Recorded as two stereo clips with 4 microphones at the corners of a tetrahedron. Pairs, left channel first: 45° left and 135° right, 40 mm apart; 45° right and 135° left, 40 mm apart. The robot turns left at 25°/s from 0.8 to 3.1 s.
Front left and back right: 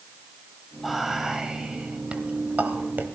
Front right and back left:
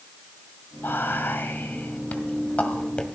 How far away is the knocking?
No knocking in this recording.